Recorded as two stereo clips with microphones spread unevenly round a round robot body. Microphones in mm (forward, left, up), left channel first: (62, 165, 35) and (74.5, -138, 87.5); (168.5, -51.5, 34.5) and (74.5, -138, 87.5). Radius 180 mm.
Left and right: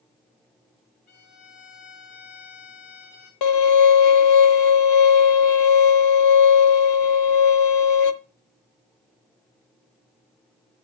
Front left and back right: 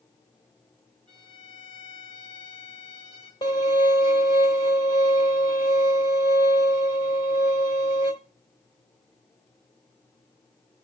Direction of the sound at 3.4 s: 105° left.